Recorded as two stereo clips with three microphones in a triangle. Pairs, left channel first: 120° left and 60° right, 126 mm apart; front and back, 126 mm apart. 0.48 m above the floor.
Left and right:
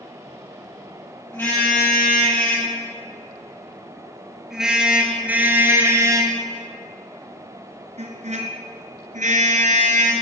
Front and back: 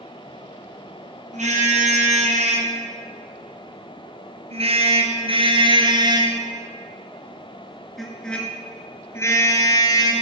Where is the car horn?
165° right, 5.5 m; by 10.1 s 55° right, 3 m.